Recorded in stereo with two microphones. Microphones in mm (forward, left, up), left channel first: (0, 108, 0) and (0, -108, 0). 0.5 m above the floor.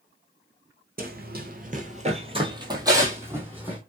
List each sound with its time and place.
1.0 s running footsteps: 45° right (ahead or behind), 0.6 m; by 3.8 s 5° right (ahead or behind), 1.3 m